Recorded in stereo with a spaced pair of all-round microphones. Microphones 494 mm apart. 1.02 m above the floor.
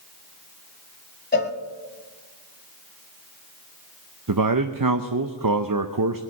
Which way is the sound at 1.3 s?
20° left (ahead or behind).